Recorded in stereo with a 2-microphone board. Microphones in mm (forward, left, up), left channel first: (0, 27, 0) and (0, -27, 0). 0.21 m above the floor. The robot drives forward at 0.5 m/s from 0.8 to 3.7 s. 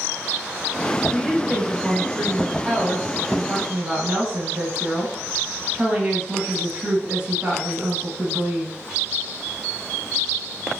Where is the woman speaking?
20° right (ahead or behind), 1.3 m.